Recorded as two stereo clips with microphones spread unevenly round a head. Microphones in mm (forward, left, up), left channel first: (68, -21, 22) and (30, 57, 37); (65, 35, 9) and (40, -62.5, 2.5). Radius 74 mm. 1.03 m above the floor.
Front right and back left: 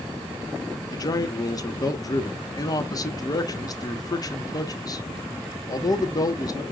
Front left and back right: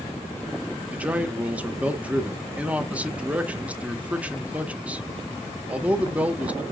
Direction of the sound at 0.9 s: 30° right.